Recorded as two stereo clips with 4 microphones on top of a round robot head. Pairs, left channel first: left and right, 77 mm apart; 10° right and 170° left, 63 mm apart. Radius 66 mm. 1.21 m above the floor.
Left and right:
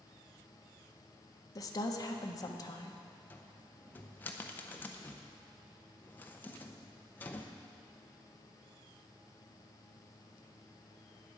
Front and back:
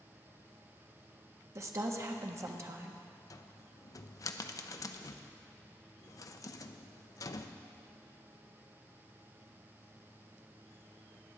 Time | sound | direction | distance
1.6 | a woman speaking | 130° left | 1.3 m
3.3 | a cupboard door | 20° left | 0.7 m